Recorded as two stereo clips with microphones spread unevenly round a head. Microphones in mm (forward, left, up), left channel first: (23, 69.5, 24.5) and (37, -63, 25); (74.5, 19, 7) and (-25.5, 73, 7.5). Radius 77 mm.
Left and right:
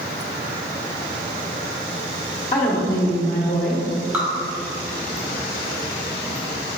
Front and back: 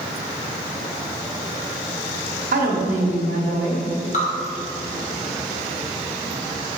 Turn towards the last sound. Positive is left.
turn(degrees=-5)